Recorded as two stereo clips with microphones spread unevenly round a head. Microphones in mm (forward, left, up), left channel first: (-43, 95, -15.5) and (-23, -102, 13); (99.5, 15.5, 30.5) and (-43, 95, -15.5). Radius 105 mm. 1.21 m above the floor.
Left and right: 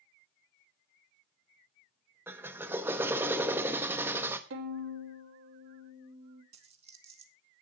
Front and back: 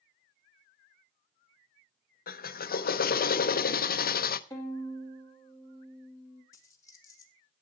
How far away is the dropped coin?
About 1.4 m.